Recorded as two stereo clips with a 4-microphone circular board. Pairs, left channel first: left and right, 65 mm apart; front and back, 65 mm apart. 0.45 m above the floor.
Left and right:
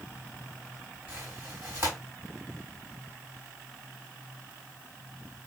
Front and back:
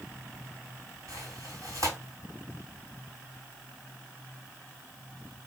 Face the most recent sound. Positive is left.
turn(degrees=-145)